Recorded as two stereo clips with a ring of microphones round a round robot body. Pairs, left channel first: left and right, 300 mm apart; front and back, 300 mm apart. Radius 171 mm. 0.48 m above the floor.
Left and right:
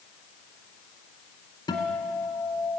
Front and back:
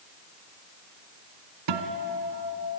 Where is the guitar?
170° left, 1.8 m.